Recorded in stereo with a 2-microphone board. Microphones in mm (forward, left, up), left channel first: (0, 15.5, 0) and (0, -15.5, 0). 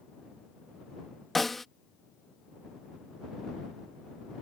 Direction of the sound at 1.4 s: Centre (ahead or behind).